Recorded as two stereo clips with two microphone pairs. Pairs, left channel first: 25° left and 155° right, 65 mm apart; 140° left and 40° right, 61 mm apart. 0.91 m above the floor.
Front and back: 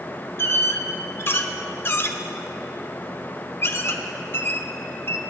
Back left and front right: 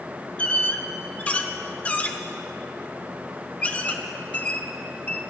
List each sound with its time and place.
0.4 s a squeak: 80° left, 0.9 m